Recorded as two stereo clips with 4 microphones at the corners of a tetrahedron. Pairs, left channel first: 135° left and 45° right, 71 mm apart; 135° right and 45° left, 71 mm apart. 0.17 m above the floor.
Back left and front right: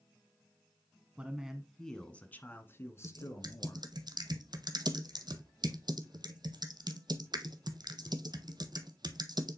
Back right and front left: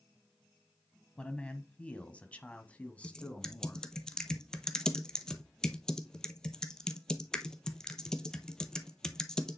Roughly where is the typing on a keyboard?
Ahead right.